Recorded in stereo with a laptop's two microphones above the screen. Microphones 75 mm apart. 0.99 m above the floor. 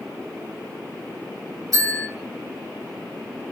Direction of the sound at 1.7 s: 55° right (ahead or behind).